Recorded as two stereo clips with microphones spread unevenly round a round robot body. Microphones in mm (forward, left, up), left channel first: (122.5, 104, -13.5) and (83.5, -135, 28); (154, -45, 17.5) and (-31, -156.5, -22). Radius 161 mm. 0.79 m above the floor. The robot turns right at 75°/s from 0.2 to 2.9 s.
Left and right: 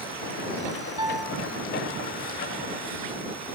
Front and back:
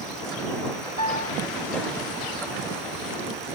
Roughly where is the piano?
Ahead right.